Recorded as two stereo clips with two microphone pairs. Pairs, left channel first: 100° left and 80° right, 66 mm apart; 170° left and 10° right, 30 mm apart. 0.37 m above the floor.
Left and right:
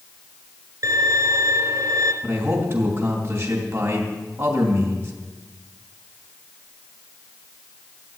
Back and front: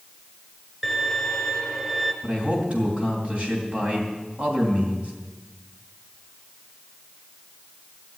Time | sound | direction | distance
0.8 | a violin | 95° right | 1.6 m
2.2 | a man speaking | 45° right | 3 m